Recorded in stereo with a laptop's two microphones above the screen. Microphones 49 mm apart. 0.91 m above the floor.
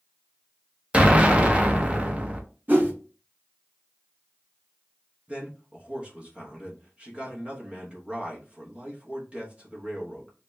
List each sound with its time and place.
0.9 s an explosion: 25° right (ahead or behind), 0.5 m
2.7 s a whoosh: 40° right (ahead or behind), 1.1 m
5.3 s a man speaking: 25° right (ahead or behind), 1.0 m